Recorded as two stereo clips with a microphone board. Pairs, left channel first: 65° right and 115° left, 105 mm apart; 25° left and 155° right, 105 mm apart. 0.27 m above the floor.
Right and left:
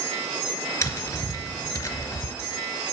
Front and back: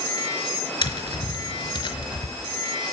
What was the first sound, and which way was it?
Tapping, 10° right.